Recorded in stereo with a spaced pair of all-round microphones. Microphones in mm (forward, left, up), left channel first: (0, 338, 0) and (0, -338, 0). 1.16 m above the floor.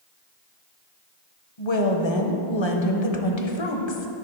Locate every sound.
1.6 s a woman speaking: 45° left (ahead or behind), 0.8 m